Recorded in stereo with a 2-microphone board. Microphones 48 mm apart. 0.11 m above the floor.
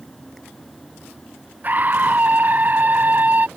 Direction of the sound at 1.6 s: 40° right (ahead or behind).